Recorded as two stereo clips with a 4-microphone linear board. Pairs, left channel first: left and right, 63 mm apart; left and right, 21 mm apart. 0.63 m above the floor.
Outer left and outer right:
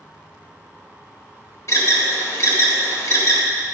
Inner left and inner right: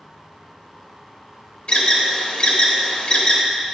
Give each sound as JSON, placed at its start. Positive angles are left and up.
{"t": 1.7, "sound": "an alarm", "side_deg": 50, "distance_m": 1.0}